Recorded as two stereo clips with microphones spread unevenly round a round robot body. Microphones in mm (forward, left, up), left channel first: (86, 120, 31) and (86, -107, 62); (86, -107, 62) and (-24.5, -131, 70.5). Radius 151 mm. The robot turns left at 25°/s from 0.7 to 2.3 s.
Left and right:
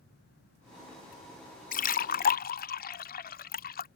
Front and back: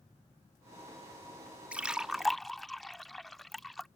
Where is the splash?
110° left; by 3.9 s 95° left.